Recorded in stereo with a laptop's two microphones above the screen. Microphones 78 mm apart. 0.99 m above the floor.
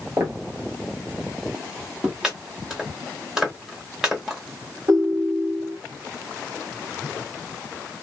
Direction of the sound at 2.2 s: 10° right (ahead or behind).